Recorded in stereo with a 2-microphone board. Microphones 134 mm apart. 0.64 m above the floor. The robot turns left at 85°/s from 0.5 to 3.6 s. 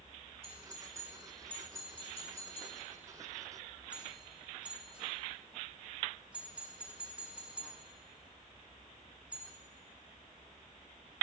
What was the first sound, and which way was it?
A doorbell, 40° right (ahead or behind).